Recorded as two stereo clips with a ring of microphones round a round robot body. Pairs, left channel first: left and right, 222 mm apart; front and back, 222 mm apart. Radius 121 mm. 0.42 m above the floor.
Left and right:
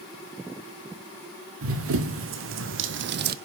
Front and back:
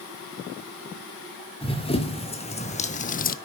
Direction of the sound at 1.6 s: 65° right.